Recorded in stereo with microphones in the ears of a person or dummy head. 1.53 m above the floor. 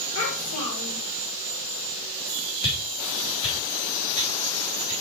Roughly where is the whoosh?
Left.